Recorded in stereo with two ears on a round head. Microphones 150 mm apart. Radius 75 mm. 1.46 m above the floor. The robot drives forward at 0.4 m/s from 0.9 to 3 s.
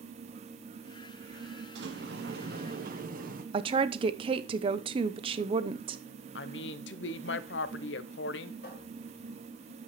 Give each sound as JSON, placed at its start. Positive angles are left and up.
{"t": 1.8, "sound": "a sliding door", "side_deg": -75, "distance_m": 0.9}
{"t": 3.5, "sound": "a woman speaking", "side_deg": -30, "distance_m": 0.7}
{"t": 6.3, "sound": "a woman speaking", "side_deg": 75, "distance_m": 0.7}
{"t": 8.6, "sound": "a cupboard door", "side_deg": 60, "distance_m": 5.5}